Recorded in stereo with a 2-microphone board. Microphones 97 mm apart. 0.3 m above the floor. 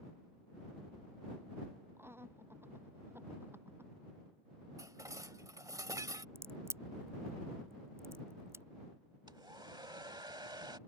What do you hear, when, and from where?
2.0 s laughter: 25° right (ahead or behind)
4.8 s dishes clattering: 35° right (ahead or behind)
6.3 s a crack: 25° right (ahead or behind)
9.3 s a hair dryer: 50° right (ahead or behind)